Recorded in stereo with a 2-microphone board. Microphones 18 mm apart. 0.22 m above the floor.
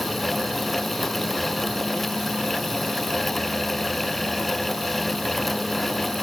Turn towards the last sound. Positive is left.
No sound to turn to.